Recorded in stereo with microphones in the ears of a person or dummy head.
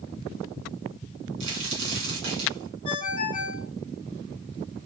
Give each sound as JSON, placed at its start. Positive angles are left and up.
{"t": 1.4, "sound": "a crack", "side_deg": -65, "distance_m": 1.9}
{"t": 2.9, "sound": "a ringtone", "side_deg": 30, "distance_m": 1.2}